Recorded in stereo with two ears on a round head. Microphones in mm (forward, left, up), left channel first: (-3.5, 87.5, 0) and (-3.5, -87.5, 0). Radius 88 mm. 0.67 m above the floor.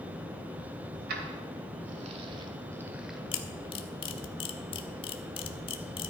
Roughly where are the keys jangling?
Right.